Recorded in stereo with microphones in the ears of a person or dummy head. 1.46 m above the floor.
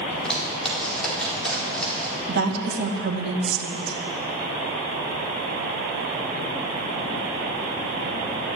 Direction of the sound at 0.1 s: Centre (ahead or behind).